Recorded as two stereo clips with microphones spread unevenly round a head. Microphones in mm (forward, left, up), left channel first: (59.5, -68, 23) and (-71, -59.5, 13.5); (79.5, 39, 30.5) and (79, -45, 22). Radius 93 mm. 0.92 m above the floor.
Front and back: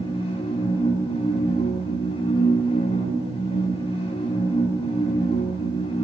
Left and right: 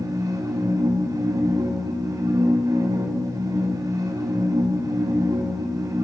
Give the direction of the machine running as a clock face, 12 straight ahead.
2 o'clock.